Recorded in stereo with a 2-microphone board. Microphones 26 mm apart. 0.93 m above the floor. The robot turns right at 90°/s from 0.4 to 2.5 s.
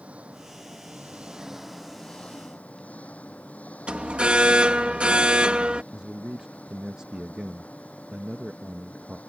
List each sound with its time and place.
0.0 s an engine running: 125° right; by 9.3 s 65° left
3.9 s an alarm: 50° right (ahead or behind)
5.9 s a man speaking: 35° right (ahead or behind)